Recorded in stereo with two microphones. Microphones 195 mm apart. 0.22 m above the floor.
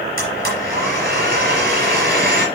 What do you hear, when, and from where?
0.2 s a blender: 50° right (ahead or behind), 4.5 m